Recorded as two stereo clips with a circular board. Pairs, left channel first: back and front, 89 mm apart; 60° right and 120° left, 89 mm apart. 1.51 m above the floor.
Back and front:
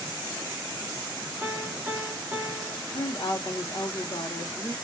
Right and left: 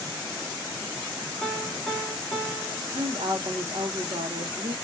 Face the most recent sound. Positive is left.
turn(degrees=135)